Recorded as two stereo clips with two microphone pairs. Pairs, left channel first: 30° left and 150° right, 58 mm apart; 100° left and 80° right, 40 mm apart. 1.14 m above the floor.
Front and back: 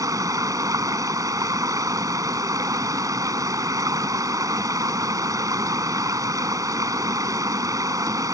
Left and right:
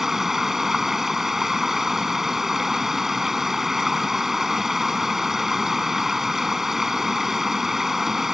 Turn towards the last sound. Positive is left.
turn(degrees=-165)